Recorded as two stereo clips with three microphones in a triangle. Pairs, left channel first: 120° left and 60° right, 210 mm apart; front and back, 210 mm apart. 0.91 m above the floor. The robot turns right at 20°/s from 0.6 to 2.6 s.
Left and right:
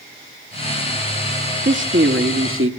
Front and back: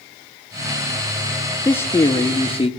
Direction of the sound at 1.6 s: 80° right.